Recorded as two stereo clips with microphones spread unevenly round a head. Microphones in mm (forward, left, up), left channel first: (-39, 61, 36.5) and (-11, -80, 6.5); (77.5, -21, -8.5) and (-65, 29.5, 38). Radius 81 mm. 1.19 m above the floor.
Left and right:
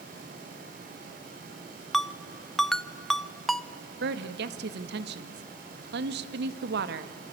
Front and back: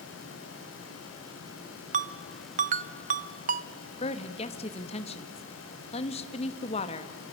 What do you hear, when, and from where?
1.9 s a ringtone: 175° right, 0.7 m
4.0 s a woman speaking: 75° right, 1.5 m